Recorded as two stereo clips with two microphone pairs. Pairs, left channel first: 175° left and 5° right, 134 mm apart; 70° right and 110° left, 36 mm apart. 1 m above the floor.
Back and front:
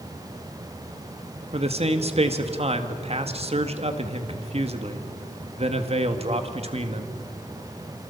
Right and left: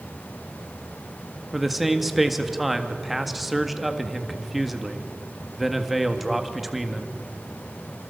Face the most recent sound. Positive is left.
turn(degrees=30)